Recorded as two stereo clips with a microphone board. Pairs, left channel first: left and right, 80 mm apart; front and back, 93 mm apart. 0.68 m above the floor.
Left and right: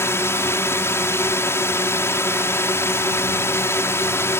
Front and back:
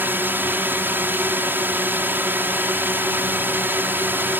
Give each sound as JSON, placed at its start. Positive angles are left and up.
{"t": 0.0, "sound": "a drone", "azimuth_deg": 125}